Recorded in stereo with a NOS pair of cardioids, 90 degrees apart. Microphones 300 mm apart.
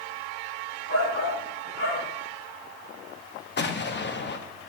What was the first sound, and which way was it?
A shout, 40° left.